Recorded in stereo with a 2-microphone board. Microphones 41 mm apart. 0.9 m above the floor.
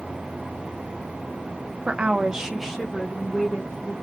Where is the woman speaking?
30° right (ahead or behind), 0.6 m; by 3.9 s 15° left (ahead or behind), 1.4 m.